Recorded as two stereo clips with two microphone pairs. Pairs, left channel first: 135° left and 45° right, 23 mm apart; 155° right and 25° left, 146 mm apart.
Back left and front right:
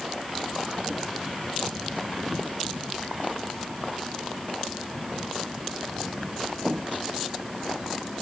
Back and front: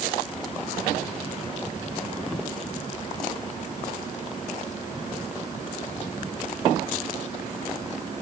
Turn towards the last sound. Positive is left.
No sound to turn to.